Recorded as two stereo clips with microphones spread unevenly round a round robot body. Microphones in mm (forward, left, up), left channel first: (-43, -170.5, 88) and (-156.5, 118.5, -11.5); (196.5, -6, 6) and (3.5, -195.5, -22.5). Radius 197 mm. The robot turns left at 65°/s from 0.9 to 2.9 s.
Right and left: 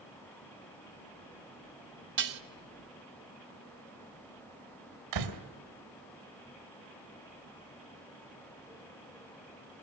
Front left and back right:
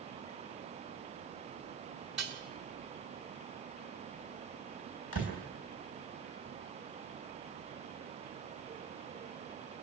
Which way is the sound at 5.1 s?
100° left.